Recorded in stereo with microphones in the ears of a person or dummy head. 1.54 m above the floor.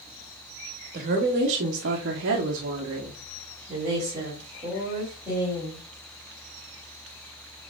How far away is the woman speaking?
About 1.2 m.